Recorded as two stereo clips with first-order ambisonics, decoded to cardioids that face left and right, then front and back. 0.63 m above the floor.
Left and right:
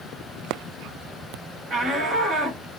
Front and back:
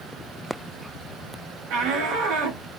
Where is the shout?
165° right, 2.0 m.